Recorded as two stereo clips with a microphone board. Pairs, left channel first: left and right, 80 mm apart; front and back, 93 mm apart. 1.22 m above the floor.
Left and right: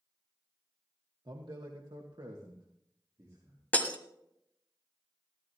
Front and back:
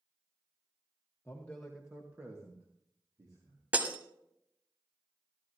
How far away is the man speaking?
About 1.2 m.